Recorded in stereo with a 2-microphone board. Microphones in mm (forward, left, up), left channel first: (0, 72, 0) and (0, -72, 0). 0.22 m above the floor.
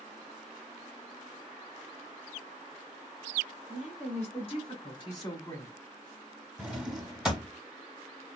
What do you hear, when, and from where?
3.7 s a woman speaking: 50° left (ahead or behind), 2.5 m; by 5.7 s 15° left (ahead or behind), 1.5 m
6.6 s a drawer: 5° right (ahead or behind), 0.9 m